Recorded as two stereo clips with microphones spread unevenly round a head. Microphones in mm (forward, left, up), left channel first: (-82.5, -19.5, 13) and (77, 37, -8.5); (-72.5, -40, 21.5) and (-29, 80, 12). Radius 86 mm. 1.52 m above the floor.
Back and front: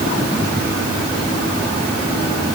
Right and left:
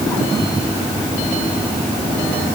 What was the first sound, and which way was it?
Only background noise.